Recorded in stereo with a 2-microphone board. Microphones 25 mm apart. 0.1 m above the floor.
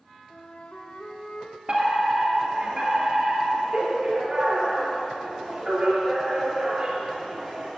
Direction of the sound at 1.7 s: 35° right (ahead or behind).